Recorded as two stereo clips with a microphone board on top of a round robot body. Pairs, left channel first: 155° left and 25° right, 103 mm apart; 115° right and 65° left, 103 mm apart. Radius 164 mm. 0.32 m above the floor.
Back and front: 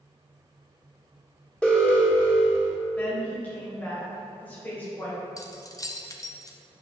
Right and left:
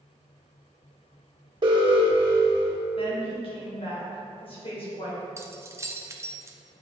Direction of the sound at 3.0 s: 130° right.